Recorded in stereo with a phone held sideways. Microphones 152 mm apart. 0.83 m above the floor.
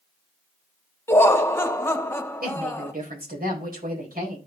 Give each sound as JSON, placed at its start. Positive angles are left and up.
{"t": 1.1, "sound": "laughter", "side_deg": 15, "distance_m": 1.3}
{"t": 2.4, "sound": "a woman speaking", "side_deg": -75, "distance_m": 4.0}